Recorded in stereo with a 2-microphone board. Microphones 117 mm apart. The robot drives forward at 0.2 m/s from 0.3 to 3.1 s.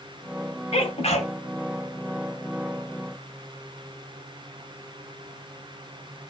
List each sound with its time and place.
0.7 s a sneeze: 65° left (ahead or behind), 1.8 m